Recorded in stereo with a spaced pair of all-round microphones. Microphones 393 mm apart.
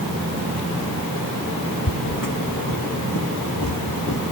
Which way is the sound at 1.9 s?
60° left (ahead or behind).